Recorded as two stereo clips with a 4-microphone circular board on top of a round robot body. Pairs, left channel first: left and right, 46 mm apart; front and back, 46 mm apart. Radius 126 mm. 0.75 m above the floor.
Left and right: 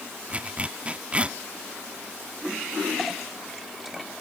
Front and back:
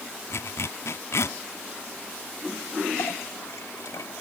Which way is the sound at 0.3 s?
25° right.